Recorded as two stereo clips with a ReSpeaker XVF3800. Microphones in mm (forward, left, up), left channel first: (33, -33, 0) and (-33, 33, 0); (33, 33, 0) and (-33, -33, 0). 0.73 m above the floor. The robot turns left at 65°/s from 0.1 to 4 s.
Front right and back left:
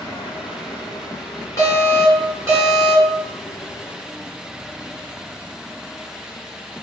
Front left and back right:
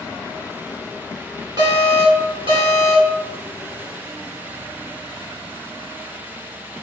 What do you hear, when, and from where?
1.6 s an alarm: 100° right, 1.1 m; by 3.2 s 155° left, 1.1 m